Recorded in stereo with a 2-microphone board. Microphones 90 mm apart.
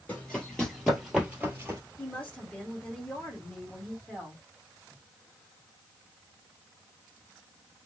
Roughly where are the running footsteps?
Left.